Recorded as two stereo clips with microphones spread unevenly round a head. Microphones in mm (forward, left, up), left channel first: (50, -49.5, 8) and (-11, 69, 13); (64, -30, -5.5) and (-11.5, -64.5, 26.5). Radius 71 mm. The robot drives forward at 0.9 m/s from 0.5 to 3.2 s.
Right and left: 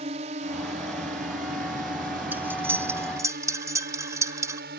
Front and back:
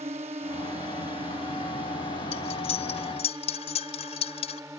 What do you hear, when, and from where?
0.0 s a drone: 165° left; by 4.8 s 130° left
2.3 s cutlery clinking: 40° left; by 4.6 s 50° left